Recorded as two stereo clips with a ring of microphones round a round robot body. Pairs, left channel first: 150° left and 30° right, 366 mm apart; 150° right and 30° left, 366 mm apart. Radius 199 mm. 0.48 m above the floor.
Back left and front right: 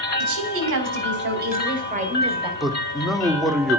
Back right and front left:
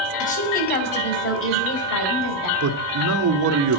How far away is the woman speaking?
About 3 m.